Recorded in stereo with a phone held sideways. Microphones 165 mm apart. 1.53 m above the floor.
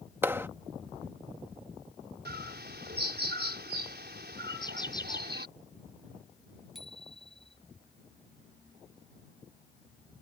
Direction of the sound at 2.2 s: 85° right.